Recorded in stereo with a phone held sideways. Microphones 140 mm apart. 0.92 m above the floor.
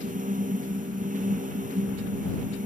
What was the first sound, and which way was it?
A fan, 80° right.